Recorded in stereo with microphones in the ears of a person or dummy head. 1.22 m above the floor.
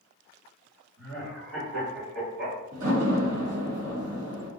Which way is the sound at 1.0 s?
65° right (ahead or behind).